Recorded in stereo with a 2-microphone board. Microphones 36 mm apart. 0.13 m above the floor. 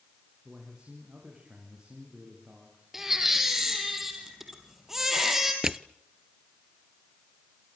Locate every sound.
0.5 s a man speaking: 25° right (ahead or behind), 7.5 m
2.9 s a baby crying: 10° right (ahead or behind), 4 m
5.6 s crushing: 15° right (ahead or behind), 0.6 m